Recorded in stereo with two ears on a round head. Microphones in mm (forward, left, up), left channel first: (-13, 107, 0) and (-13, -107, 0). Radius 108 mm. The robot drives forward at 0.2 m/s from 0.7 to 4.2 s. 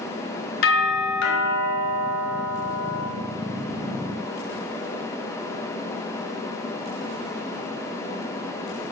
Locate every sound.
0.6 s a doorbell: 60° left (ahead or behind), 3.5 m; by 3.0 s 55° left (ahead or behind), 3.5 m